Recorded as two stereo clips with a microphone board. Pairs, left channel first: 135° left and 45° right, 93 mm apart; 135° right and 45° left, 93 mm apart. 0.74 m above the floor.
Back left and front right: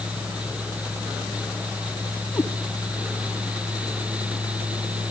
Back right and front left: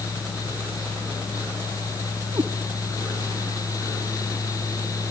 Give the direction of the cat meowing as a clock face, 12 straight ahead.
9 o'clock.